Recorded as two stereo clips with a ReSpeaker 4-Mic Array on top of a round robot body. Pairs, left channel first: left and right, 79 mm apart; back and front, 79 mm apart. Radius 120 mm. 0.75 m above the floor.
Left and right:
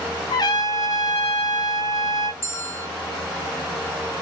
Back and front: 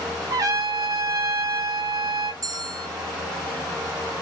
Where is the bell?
35° left, 1.0 m.